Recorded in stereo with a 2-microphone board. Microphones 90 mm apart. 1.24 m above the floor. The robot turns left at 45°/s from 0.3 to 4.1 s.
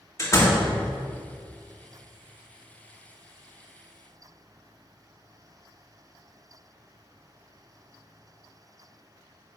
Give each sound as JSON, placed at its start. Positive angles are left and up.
{"t": 0.2, "sound": "a door slam", "side_deg": 35, "distance_m": 1.5}